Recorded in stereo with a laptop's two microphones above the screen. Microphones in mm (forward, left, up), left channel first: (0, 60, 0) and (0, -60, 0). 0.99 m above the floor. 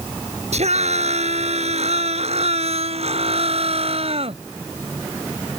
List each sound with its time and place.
0.5 s a scream: 65° right (ahead or behind); by 4.4 s 55° right (ahead or behind)